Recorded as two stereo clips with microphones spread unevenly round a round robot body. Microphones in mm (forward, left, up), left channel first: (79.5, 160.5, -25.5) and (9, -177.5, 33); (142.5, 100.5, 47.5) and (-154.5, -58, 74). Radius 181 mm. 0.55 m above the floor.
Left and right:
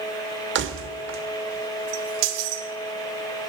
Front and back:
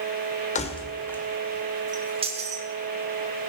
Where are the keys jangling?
40° right, 1.3 m; by 2.6 s 80° right, 1.9 m.